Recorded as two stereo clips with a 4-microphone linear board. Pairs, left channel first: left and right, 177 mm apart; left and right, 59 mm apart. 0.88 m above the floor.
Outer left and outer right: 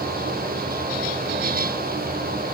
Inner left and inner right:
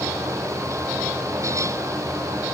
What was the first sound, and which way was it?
Only background noise.